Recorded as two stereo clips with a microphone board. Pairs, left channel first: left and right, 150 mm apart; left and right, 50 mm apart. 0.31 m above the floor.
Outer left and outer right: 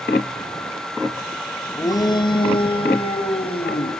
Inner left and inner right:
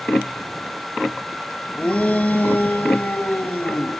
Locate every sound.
1.8 s a shout: 20° left (ahead or behind), 1.4 m; by 3.9 s 40° left (ahead or behind), 3.5 m